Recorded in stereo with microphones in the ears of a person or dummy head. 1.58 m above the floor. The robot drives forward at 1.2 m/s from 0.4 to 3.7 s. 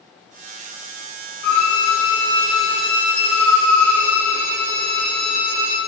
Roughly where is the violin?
Left.